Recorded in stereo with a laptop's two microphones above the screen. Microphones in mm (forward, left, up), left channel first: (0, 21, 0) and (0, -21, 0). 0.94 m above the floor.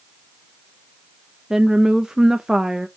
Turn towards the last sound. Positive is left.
turn(degrees=-15)  # may be behind; listen again after turning